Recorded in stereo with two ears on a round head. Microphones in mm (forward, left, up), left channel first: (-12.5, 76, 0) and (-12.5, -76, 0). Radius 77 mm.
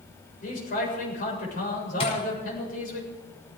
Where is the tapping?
35° left (ahead or behind), 5.5 m.